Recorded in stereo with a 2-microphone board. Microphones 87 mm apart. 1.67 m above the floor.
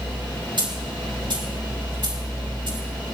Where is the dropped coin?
70° right (ahead or behind), 3.5 m.